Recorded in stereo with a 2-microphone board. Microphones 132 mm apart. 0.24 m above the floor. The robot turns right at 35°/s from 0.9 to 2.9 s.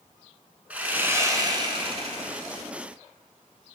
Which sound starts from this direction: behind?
Sawing, at 0.7 s.